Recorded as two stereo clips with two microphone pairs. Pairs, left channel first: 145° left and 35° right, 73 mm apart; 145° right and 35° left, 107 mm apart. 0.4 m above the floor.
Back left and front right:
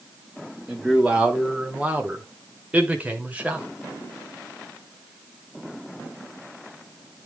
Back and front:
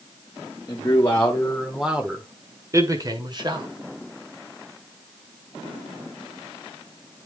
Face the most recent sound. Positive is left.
turn(degrees=25)